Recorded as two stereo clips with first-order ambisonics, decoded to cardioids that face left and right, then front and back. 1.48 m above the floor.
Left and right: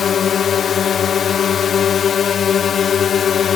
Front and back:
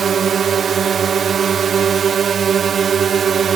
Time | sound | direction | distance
0.0 | a drone | 135° left | ?